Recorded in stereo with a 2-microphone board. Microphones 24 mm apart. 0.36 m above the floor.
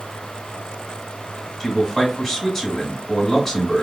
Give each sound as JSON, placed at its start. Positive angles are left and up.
{"t": 1.6, "sound": "a man speaking", "side_deg": 5, "distance_m": 1.2}